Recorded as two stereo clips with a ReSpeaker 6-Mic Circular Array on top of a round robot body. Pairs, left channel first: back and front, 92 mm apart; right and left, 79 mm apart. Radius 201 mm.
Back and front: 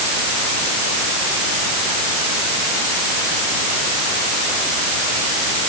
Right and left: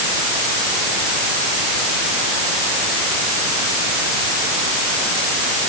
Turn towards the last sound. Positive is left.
No sound to turn to.